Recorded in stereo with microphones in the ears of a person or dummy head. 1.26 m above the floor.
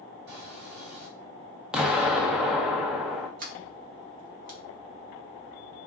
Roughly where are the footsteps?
Right.